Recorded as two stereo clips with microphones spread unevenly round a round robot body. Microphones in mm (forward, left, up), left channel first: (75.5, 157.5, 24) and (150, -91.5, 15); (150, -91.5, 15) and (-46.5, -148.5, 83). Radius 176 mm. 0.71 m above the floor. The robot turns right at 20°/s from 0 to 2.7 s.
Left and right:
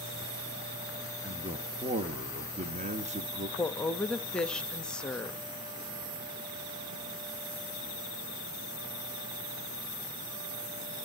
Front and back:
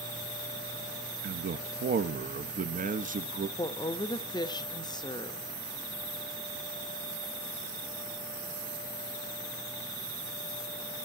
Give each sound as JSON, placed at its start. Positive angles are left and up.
{"t": 1.2, "sound": "a man speaking", "azimuth_deg": -135, "distance_m": 0.8}
{"t": 3.6, "sound": "a woman speaking", "azimuth_deg": 20, "distance_m": 0.8}